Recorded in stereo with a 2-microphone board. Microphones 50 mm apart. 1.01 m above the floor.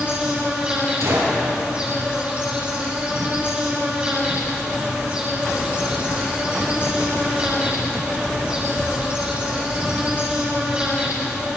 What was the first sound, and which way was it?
An insect, 20° right (ahead or behind).